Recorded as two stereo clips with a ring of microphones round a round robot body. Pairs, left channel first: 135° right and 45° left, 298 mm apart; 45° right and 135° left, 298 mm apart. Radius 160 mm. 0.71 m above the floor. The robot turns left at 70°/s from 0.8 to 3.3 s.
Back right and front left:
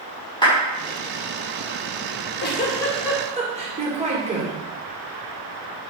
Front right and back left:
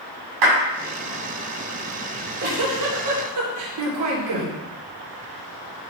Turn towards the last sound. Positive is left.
turn(degrees=115)